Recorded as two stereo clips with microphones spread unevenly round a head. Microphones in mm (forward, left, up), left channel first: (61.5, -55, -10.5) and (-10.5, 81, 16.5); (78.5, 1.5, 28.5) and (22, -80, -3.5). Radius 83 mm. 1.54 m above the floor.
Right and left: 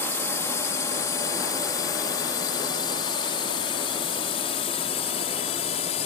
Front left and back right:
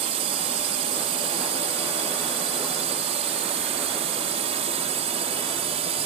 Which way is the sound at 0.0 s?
140° right.